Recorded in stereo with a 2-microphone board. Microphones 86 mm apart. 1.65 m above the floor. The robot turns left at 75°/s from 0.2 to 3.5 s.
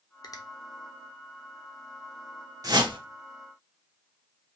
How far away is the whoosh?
About 1.1 m.